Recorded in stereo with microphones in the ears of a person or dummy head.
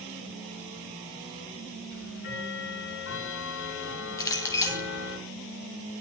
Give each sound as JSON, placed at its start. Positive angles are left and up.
{"t": 1.9, "sound": "ticking", "side_deg": 65, "distance_m": 10.0}
{"t": 4.2, "sound": "a clink", "side_deg": 15, "distance_m": 1.2}